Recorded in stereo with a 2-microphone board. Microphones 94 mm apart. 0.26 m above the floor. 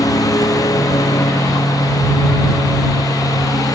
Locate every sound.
0.0 s a lawn mower: 40° left (ahead or behind)